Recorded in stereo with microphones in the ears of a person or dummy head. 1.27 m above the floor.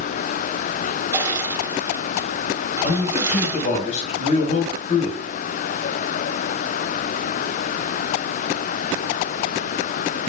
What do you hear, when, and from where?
1.1 s crushing: 20° right (ahead or behind), 3 m
2.8 s a man speaking: 45° left (ahead or behind), 5.5 m